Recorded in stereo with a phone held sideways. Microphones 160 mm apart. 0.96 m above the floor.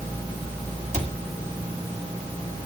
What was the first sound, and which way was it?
A cupboard door, 45° right (ahead or behind).